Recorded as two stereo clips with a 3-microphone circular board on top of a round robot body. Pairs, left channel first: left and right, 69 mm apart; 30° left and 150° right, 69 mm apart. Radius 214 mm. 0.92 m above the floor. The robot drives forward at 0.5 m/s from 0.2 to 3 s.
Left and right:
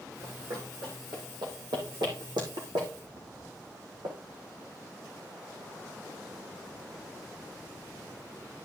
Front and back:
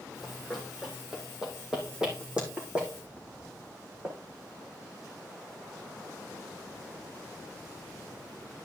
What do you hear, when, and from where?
0.2 s running footsteps: 60° right, 2.5 m; by 4.2 s 75° right, 4 m